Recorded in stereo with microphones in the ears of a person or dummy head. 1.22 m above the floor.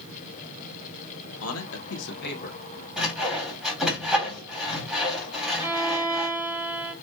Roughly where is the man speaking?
Left.